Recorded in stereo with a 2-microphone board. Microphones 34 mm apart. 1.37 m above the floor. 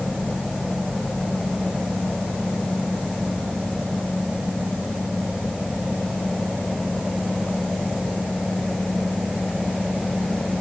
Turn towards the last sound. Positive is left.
No sound to turn to.